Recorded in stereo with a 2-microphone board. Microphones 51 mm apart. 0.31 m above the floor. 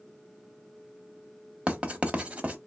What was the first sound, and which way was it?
Writing, 25° right (ahead or behind).